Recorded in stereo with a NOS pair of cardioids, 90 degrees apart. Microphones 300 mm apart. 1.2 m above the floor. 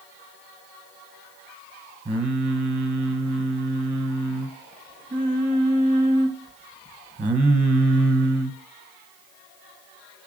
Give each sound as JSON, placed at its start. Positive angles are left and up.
{"t": 2.0, "sound": "singing", "azimuth_deg": -20, "distance_m": 0.8}